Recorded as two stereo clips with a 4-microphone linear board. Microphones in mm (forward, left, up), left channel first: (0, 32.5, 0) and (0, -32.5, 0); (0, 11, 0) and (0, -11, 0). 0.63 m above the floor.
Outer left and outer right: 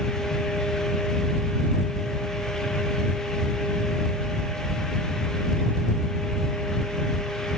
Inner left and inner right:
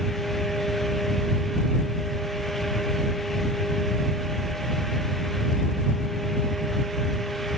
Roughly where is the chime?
No chime in this recording.